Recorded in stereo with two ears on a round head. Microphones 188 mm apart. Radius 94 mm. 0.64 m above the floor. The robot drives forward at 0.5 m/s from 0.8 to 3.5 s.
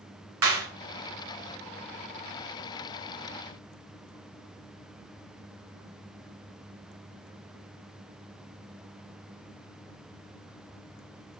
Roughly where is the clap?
Right.